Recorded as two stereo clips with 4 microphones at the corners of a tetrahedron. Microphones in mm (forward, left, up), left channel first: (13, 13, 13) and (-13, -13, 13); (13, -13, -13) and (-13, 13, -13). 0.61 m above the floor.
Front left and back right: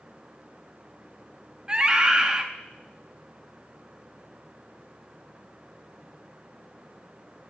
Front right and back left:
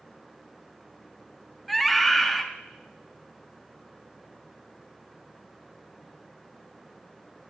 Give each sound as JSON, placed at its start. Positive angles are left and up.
{"t": 1.7, "sound": "a scream", "azimuth_deg": -125, "distance_m": 0.7}